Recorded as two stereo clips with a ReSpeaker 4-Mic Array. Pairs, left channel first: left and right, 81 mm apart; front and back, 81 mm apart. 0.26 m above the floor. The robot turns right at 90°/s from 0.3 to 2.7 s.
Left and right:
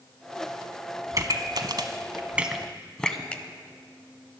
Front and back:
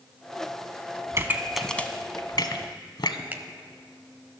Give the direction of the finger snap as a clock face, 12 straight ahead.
7 o'clock.